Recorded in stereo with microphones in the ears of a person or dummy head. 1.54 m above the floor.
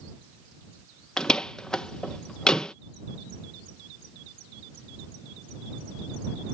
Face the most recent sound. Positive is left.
turn(degrees=5)  # may be behind; listen again after turning